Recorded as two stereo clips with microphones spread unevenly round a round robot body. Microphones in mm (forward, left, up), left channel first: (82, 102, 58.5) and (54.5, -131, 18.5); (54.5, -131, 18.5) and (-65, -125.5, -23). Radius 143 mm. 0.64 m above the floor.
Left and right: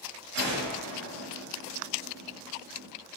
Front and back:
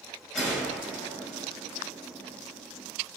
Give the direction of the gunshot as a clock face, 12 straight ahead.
3 o'clock.